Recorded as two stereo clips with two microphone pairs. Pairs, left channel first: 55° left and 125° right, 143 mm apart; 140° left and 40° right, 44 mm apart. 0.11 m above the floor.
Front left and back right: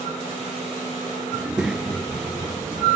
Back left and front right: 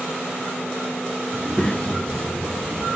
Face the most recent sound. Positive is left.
turn(degrees=155)